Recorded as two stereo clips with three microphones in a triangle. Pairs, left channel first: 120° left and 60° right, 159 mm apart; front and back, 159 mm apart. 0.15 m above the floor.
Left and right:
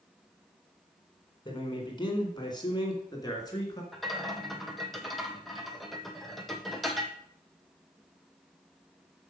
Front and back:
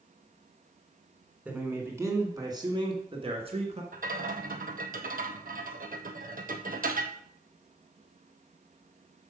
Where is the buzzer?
I don't hear a buzzer.